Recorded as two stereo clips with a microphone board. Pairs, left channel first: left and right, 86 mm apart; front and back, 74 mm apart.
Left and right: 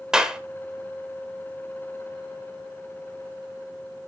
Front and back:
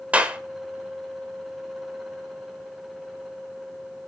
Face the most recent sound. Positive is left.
turn(degrees=-155)